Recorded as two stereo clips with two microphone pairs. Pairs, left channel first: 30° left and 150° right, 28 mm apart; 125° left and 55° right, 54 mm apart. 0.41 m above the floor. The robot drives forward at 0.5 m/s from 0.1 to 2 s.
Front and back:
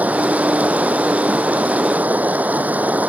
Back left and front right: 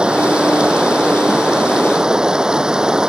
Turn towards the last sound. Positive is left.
turn(degrees=-130)